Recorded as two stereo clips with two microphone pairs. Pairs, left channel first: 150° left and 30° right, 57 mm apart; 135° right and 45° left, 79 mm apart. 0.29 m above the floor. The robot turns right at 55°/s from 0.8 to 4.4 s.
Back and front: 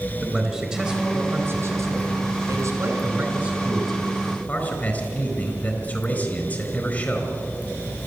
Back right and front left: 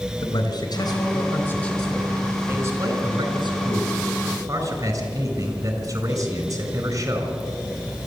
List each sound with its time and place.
0.2 s a man speaking: 105° right, 4 m; by 7.3 s 95° left, 4 m